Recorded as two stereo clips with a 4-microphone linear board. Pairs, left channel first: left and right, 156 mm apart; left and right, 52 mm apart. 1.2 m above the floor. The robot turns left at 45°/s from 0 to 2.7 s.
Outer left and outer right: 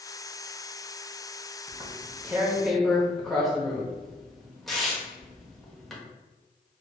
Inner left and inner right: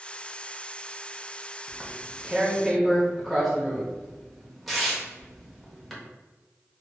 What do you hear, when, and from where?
1.7 s tearing paper: 35° right (ahead or behind), 0.9 m; by 6.0 s centre (ahead or behind), 0.9 m